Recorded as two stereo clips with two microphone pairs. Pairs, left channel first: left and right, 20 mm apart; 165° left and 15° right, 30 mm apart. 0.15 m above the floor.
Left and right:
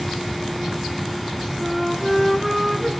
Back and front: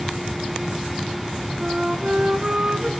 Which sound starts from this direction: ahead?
A flute, at 1.6 s.